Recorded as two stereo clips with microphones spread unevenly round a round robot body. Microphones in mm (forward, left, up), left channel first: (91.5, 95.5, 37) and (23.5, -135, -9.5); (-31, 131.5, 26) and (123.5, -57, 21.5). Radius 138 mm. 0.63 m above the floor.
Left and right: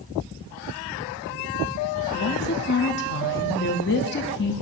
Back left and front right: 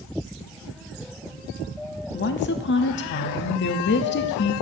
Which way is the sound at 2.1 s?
115° left.